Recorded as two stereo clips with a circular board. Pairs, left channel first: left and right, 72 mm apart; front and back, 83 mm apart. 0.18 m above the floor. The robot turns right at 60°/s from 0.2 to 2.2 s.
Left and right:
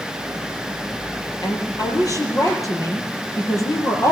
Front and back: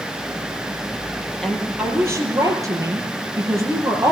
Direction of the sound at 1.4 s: 85° left.